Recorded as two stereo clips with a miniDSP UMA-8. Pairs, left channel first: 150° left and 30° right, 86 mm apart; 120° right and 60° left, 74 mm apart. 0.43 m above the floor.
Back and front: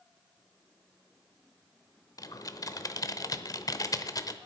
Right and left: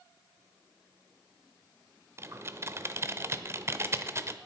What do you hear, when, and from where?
2.2 s typing on a keyboard: 110° left, 0.8 m